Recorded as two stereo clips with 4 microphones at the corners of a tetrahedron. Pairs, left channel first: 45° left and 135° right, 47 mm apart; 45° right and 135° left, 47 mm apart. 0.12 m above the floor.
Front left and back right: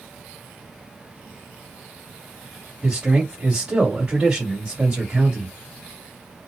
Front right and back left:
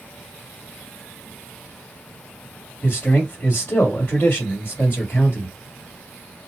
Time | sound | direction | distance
2.8 | a man speaking | 65° right | 1.7 m